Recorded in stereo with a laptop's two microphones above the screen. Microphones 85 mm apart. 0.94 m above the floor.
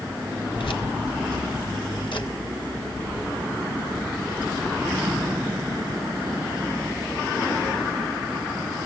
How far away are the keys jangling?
About 1.3 m.